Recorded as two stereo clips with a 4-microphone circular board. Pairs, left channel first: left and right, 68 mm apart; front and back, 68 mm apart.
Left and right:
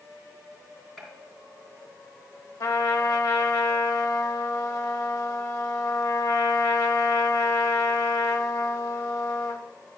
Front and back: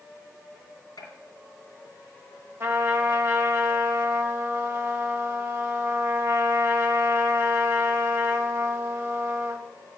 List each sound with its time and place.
1.0 s a gunshot: 5° left, 3 m
2.6 s a trumpet: 120° left, 1.1 m